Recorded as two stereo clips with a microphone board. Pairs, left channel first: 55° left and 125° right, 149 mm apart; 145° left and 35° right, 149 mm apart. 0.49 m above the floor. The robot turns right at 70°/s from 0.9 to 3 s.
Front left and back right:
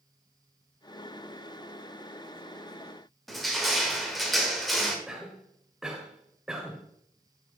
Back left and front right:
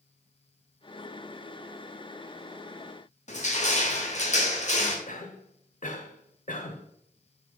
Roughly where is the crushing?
Behind left.